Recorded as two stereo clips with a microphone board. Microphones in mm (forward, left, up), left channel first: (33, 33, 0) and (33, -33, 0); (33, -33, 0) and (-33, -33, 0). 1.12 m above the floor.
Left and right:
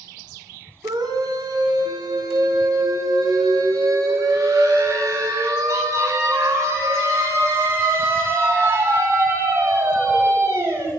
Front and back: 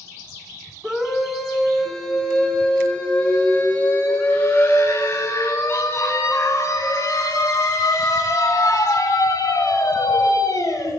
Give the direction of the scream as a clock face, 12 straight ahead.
3 o'clock.